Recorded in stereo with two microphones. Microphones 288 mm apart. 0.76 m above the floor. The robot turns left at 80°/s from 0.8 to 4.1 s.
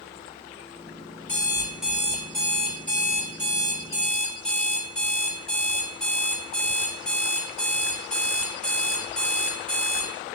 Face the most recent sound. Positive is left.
turn(degrees=175)